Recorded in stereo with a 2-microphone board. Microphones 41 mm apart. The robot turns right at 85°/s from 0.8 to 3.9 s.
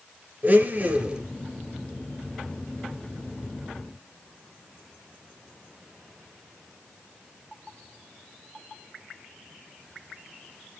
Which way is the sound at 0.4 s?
55° right.